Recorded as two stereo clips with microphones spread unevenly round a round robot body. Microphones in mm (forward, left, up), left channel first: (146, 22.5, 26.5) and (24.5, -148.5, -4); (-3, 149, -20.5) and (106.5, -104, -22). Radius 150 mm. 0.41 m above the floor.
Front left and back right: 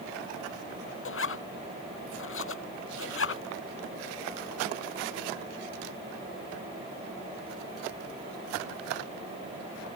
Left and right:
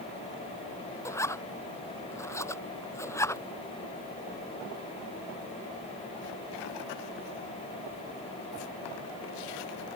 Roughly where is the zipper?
Ahead left.